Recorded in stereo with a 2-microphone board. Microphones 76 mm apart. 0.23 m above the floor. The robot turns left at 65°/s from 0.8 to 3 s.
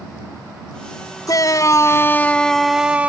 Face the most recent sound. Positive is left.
turn(degrees=-20)